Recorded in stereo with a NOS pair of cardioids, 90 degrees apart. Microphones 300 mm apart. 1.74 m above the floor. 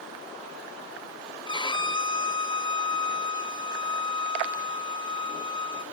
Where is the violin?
15° left, 1.1 m.